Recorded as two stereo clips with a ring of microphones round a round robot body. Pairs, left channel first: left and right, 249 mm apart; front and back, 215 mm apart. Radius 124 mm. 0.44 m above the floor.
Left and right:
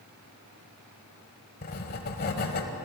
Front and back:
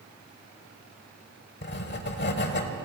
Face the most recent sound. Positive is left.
turn(degrees=40)